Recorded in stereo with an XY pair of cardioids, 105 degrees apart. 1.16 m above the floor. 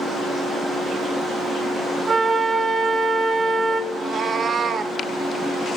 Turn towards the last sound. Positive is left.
turn(degrees=-45)